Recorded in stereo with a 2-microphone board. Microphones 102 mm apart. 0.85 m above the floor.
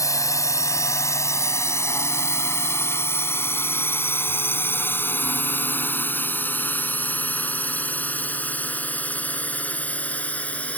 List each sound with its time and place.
0.0 s a drone: 30° left (ahead or behind); by 10.8 s 15° left (ahead or behind)